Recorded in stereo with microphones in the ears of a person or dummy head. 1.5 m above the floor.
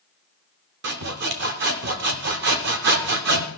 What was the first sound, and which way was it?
Sawing, 60° right (ahead or behind).